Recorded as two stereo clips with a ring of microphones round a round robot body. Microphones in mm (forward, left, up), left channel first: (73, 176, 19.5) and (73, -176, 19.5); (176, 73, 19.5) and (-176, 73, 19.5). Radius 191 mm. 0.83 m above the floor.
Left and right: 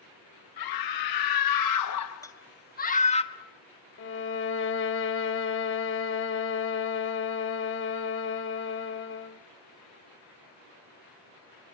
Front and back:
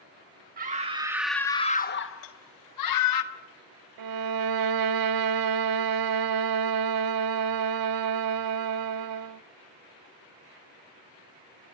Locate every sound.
0.6 s a scream: 115° left, 1.5 m; by 3.2 s 15° left, 1.8 m
2.2 s a rattle: 10° left, 2.5 m
4.0 s a violin: 150° left, 0.9 m